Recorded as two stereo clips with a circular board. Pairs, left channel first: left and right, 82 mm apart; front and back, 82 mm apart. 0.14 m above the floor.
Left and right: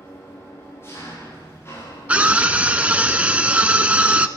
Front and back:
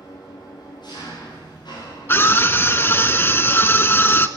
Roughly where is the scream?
Ahead right.